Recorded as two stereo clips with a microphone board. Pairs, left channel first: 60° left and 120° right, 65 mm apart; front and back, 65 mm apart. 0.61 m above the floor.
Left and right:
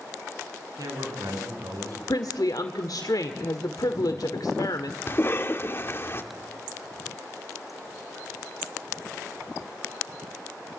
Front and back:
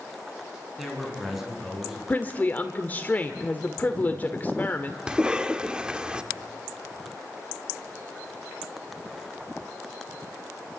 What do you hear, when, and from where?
0.8 s a man speaking: 95° right, 7.5 m
2.1 s a woman speaking: 60° left, 1.5 m
5.1 s a cough: 110° left, 1.7 m